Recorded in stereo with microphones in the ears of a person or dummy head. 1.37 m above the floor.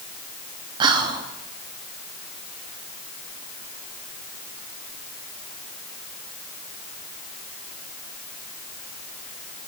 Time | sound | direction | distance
0.8 | whispering | 25° right (ahead or behind) | 0.6 m